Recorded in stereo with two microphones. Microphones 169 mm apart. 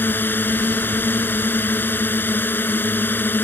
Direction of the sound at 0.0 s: 10° left (ahead or behind).